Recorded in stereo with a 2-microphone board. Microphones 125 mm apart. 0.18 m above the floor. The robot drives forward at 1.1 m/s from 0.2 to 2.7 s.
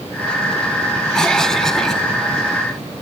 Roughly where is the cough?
Centre.